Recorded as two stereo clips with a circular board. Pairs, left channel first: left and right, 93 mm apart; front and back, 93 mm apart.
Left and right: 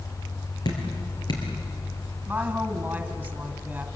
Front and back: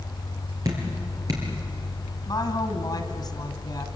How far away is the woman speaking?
About 2 m.